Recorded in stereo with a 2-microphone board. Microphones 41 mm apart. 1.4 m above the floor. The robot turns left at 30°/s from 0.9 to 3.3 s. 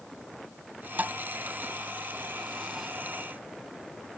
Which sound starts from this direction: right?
A thud, at 1.0 s.